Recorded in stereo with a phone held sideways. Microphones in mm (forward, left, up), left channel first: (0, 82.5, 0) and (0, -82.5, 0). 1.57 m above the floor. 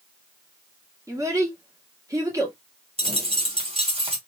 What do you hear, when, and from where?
1.1 s a child speaking: 20° right (ahead or behind), 1.9 m
3.0 s a dropped coin: 35° right (ahead or behind), 1.9 m